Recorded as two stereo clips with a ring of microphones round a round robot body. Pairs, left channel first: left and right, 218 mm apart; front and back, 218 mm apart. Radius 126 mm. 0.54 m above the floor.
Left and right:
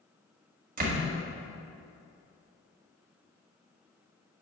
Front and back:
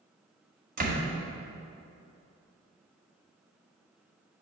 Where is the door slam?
135° right, 1.8 m.